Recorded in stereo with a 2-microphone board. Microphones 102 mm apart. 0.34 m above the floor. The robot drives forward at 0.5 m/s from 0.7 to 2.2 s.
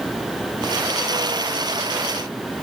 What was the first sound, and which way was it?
Only background noise.